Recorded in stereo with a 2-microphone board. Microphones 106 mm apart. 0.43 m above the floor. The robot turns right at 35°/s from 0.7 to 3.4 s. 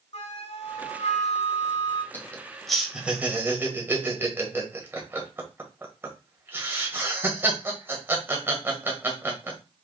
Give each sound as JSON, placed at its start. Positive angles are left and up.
{"t": 0.1, "sound": "a flute", "azimuth_deg": 75, "distance_m": 1.0}
{"t": 2.1, "sound": "laughter", "side_deg": 20, "distance_m": 1.6}